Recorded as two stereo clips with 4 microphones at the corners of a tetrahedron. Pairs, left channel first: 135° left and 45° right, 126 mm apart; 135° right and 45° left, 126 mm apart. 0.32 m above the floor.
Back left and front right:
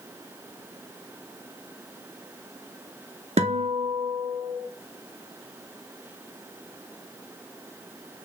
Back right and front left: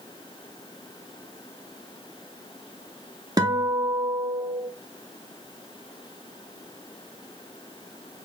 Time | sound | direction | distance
3.4 | a guitar | 15° right | 0.7 m